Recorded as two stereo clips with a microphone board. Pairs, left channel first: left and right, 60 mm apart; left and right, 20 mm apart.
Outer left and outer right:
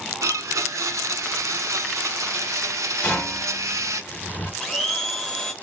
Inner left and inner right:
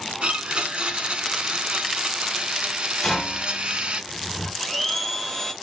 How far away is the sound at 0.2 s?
About 0.6 m.